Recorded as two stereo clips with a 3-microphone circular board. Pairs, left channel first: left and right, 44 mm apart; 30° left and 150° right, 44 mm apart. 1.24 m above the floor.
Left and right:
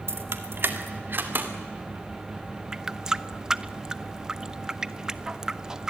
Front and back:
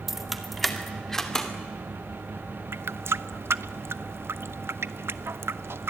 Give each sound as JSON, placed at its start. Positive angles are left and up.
{"t": 0.1, "sound": "keys jangling", "azimuth_deg": -65, "distance_m": 1.6}
{"t": 2.7, "sound": "a running tap", "azimuth_deg": -165, "distance_m": 0.7}